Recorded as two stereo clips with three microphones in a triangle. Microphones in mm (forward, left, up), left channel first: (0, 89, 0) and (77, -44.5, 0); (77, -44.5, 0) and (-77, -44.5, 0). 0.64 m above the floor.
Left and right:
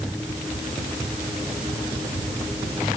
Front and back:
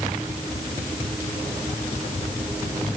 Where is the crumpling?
No crumpling in this recording.